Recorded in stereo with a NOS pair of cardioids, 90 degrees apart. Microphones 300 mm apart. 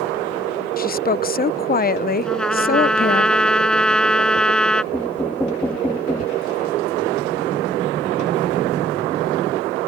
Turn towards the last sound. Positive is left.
turn(degrees=5)